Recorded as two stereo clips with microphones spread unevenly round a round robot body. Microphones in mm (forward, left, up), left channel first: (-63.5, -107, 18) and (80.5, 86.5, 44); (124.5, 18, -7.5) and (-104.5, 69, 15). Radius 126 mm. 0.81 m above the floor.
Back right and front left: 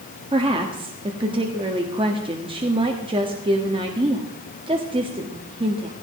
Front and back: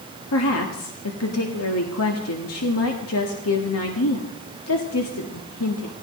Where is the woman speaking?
20° right, 1.6 m.